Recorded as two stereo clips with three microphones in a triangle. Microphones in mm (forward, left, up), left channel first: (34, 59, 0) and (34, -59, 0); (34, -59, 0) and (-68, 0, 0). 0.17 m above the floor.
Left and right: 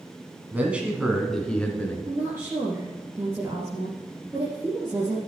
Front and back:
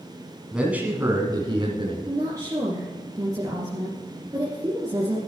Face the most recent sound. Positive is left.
turn(degrees=-155)